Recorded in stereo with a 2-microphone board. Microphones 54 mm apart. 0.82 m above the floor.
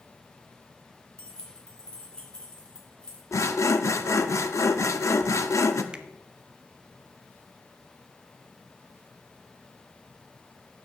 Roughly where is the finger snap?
Right.